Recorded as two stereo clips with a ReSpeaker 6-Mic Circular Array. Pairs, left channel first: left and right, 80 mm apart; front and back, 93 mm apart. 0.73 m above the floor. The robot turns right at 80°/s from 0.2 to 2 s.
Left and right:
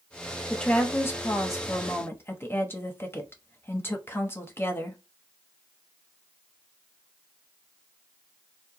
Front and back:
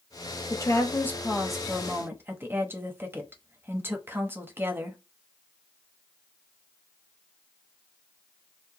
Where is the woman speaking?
10° left, 0.9 m; by 5.0 s 130° left, 0.9 m.